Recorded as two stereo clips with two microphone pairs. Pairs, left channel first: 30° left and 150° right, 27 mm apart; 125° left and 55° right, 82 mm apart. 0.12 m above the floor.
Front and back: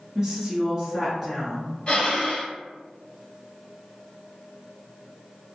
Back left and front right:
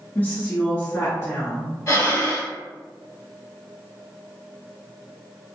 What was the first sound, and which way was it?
A woman speaking, 160° left.